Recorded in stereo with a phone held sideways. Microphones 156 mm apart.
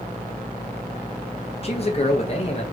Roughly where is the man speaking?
Left.